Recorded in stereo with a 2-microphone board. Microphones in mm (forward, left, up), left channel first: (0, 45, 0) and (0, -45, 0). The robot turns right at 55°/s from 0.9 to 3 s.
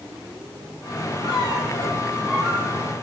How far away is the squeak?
About 5 m.